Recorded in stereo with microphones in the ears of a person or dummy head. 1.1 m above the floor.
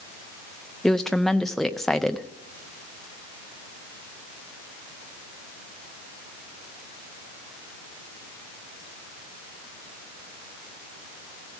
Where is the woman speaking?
Centre (ahead or behind), 0.5 m.